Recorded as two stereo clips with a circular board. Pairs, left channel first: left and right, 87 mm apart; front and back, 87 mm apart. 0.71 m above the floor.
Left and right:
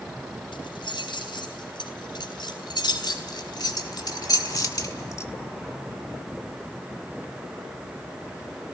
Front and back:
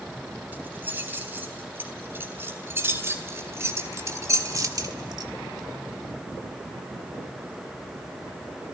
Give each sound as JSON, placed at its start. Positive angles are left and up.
{"t": 0.5, "sound": "keys jangling", "azimuth_deg": 110, "distance_m": 4.0}